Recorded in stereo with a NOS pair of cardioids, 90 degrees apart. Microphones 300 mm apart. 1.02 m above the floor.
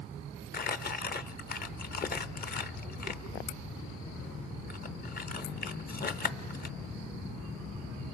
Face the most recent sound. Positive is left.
turn(degrees=30)